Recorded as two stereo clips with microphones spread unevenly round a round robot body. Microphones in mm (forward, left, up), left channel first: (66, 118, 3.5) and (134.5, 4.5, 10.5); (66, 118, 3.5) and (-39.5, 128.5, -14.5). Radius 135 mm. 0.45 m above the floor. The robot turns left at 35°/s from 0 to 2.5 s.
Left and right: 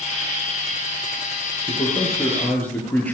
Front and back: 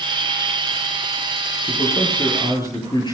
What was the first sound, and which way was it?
A man speaking, 70° left.